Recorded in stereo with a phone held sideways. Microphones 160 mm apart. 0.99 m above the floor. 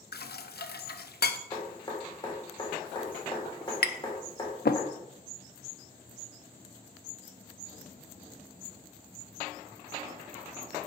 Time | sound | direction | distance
0.1 | dishes clattering | 85° left | 0.5 m
1.5 | dripping | 30° left (ahead or behind) | 3.5 m
3.8 | tapping | 80° left | 0.6 m